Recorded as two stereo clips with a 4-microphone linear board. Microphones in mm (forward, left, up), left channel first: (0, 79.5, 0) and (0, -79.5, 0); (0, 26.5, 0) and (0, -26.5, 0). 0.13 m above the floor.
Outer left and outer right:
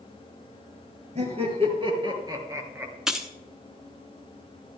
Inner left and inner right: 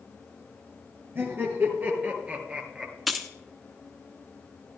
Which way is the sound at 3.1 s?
5° right (ahead or behind).